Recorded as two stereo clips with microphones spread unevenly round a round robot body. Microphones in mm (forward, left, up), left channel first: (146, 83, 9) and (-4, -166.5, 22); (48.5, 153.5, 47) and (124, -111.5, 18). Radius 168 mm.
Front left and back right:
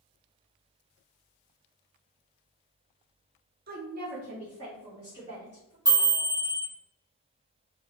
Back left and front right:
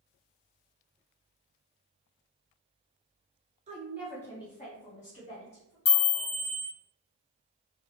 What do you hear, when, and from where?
3.7 s a woman speaking: 90° right, 0.5 m; by 5.8 s 155° left, 1.4 m
5.8 s a chime: 160° left, 0.5 m